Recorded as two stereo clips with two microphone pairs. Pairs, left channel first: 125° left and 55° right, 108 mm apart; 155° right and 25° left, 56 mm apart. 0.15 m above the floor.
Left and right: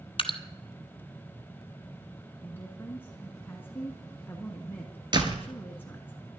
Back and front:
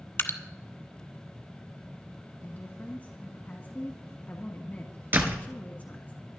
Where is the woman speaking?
Straight behind, 1.3 m.